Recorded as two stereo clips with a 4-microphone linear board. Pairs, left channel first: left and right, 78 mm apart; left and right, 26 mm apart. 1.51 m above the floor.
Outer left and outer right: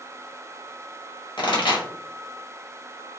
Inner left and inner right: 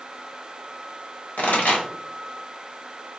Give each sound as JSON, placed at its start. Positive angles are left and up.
{"t": 1.4, "sound": "a pop", "side_deg": 85, "distance_m": 0.9}